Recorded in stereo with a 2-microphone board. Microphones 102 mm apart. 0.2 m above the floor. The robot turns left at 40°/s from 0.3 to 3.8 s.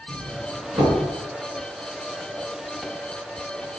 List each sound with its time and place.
0.1 s a doorbell: 35° right (ahead or behind), 3.5 m; by 1.0 s 55° right (ahead or behind), 3.5 m